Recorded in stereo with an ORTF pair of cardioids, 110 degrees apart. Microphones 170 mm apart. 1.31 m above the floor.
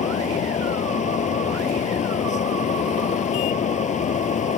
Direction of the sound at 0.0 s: 45° left.